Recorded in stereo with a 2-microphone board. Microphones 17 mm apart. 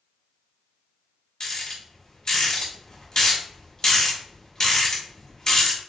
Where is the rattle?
30° left (ahead or behind), 1.9 m.